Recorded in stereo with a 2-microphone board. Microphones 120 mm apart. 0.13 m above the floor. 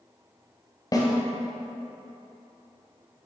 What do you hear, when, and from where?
0.9 s a snare drum: 30° left (ahead or behind), 1.4 m